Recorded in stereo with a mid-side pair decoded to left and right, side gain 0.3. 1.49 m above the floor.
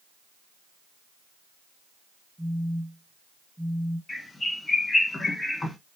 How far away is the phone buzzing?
About 1.0 m.